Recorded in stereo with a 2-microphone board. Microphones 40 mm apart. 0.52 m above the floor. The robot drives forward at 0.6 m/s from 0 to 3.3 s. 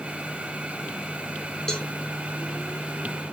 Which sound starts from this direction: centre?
A cowbell, at 1.7 s.